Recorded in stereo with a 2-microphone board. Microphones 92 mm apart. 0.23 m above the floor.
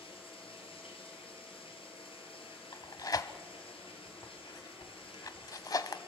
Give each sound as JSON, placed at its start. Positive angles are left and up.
{"t": 0.0, "sound": "running water", "side_deg": 75, "distance_m": 4.5}
{"t": 2.7, "sound": "tearing paper", "side_deg": 45, "distance_m": 0.9}